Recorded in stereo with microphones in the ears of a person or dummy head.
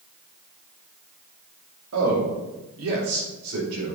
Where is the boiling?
No boiling in this recording.